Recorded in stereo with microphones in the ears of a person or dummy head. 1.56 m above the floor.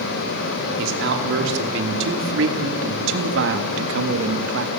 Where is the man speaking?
75° right (ahead or behind), 4 m; by 4.7 s 85° right, 2 m.